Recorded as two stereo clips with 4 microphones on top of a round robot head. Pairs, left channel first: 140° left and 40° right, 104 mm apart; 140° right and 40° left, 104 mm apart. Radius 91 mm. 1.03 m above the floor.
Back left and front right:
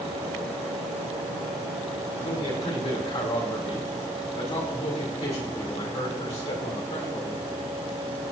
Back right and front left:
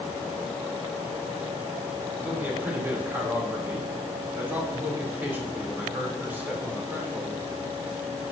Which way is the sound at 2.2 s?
110° left.